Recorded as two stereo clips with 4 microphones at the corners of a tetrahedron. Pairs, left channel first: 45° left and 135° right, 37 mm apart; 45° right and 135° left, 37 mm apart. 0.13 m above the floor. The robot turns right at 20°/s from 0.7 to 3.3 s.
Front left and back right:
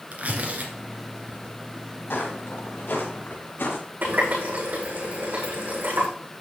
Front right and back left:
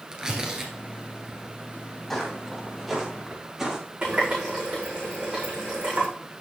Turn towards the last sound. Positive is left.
turn(degrees=-160)